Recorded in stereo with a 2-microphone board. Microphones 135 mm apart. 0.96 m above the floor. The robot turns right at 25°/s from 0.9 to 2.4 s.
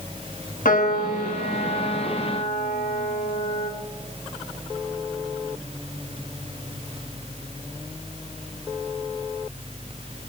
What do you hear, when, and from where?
0.7 s a piano: 80° left, 1.7 m; by 3.7 s 115° left, 1.7 m